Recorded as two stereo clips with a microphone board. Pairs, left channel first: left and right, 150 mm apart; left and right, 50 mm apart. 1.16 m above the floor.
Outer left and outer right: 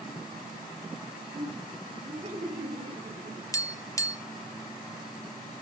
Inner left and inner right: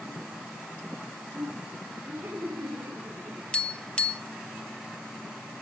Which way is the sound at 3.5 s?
20° left (ahead or behind).